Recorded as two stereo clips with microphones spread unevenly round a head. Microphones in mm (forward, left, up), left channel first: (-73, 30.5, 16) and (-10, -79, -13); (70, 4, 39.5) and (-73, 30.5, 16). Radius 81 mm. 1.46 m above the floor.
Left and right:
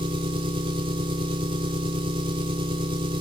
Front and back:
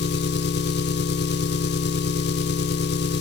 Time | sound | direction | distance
0.0 | an engine running | 5° left | 0.9 m